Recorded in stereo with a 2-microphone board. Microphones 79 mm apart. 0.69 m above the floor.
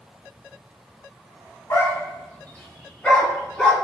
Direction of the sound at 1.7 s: 40° left (ahead or behind).